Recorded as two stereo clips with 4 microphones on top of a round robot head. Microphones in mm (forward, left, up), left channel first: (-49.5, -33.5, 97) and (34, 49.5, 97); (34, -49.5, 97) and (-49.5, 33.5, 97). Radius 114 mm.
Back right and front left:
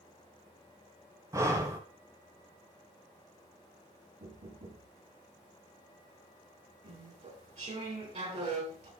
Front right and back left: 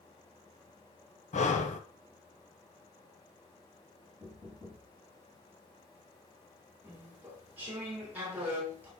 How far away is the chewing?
About 4 m.